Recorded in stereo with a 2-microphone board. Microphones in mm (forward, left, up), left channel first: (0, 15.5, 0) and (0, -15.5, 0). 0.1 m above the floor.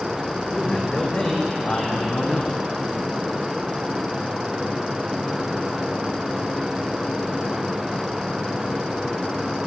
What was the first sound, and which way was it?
A man speaking, 20° left (ahead or behind).